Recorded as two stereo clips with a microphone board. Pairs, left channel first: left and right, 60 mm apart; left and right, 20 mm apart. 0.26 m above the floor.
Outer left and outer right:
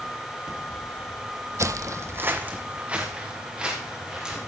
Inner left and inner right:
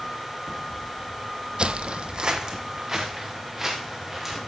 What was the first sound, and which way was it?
Footsteps, 55° right (ahead or behind).